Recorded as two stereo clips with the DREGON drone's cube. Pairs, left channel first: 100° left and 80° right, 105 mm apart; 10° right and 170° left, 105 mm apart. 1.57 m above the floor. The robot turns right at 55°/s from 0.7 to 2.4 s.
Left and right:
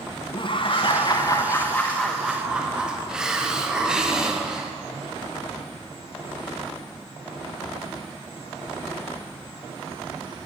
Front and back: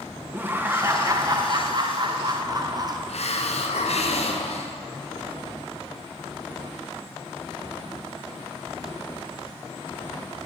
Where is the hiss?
5° left, 0.7 m.